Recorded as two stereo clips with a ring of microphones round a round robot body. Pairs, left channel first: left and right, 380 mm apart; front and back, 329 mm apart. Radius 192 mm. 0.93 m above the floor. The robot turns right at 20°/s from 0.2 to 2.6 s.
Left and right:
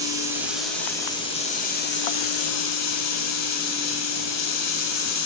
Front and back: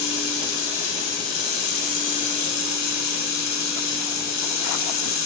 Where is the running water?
10° right, 1.7 m; by 5.3 s 40° left, 1.7 m.